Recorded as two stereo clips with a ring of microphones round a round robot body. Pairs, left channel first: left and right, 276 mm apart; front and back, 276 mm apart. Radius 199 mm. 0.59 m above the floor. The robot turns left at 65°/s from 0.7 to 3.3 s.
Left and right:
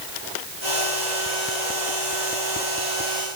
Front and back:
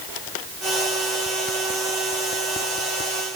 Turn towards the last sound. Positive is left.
No sound to turn to.